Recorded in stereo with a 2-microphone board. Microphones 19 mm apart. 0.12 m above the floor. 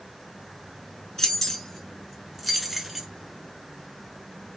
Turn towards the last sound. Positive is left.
turn(degrees=-15)  # may be behind; listen again after turning